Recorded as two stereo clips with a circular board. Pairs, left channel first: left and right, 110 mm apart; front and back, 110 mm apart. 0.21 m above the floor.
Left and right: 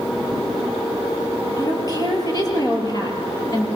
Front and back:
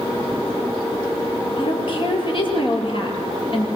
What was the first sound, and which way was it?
A woman speaking, 35° left.